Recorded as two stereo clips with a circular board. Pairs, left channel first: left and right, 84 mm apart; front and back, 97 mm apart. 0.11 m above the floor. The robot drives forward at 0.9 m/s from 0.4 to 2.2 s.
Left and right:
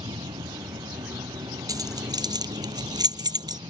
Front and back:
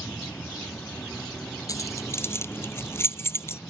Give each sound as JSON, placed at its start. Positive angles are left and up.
{"t": 0.0, "sound": "an insect", "azimuth_deg": -75}
{"t": 1.7, "sound": "keys jangling", "azimuth_deg": -50}